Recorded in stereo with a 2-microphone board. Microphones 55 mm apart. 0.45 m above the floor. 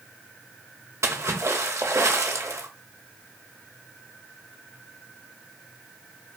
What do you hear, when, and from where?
1.0 s a splash: 65° right (ahead or behind), 0.6 m